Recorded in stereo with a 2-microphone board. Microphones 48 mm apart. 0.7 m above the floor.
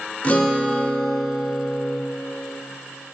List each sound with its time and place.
0.2 s a guitar: 30° left (ahead or behind), 0.6 m